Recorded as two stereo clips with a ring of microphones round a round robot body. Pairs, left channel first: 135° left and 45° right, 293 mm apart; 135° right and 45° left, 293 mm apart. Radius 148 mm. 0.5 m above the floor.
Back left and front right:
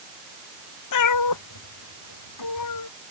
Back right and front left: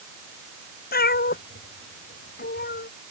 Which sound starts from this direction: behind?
A cat meowing, at 0.9 s.